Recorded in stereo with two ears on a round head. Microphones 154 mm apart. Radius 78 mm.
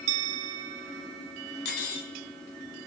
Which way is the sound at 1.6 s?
65° left (ahead or behind).